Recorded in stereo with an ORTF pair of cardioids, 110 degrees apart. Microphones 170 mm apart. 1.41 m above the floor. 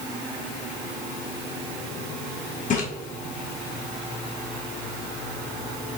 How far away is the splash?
About 2.5 m.